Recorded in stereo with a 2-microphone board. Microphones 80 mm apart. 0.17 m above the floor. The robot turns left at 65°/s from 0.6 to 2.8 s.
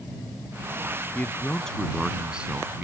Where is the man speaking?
20° left (ahead or behind); by 2.9 s 20° right (ahead or behind).